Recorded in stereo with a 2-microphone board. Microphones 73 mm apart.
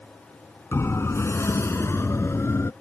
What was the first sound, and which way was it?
A siren, 35° left (ahead or behind).